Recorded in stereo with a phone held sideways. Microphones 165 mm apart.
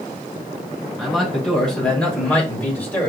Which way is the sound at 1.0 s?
Centre (ahead or behind).